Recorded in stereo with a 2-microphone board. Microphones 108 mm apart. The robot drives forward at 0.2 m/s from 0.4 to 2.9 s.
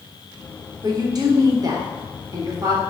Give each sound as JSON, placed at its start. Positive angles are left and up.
{"t": 0.8, "sound": "a woman speaking", "side_deg": -40, "distance_m": 0.8}